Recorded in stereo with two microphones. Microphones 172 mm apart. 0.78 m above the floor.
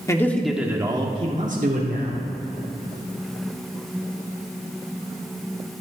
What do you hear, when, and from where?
0.1 s a man speaking: 20° left (ahead or behind), 1.4 m; by 2.2 s 65° right (ahead or behind), 2 m